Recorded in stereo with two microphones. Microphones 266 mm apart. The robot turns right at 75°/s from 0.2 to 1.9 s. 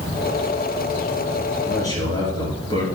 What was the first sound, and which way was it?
A man speaking, centre (ahead or behind).